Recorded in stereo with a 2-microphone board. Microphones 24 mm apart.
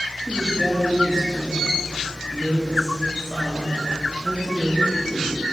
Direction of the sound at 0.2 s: 25° right (ahead or behind).